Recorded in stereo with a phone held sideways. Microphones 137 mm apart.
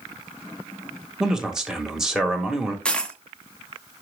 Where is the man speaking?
5° right (ahead or behind), 1.6 m.